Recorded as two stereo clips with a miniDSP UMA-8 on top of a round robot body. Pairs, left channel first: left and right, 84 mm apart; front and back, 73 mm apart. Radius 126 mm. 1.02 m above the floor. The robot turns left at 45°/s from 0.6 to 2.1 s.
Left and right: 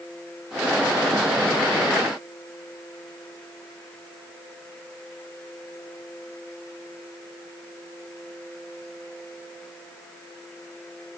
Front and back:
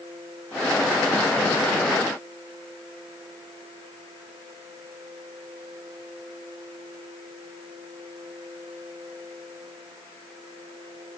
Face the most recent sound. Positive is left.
No sound to turn to.